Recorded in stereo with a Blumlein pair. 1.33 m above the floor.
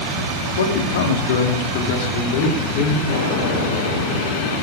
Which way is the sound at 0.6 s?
60° left.